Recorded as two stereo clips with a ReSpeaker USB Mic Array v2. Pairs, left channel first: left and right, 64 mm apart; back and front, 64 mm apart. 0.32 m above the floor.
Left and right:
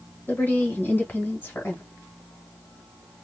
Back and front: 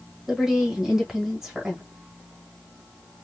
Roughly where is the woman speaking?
Left.